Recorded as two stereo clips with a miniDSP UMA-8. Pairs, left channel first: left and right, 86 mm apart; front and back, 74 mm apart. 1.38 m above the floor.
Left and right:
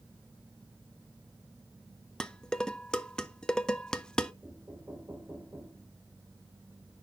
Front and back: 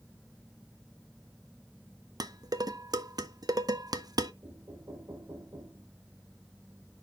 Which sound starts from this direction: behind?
Dishes clattering, at 2.2 s.